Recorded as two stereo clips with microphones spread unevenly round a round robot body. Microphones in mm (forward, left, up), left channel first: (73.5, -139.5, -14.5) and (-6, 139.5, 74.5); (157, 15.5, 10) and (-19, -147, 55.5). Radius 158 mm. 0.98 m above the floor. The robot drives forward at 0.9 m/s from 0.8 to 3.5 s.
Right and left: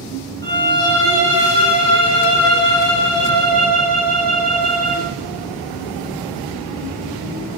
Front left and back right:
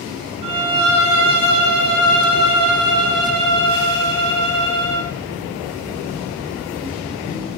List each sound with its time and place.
0.4 s a violin: 150° right, 4.5 m; by 5.1 s 160° right, 6.5 m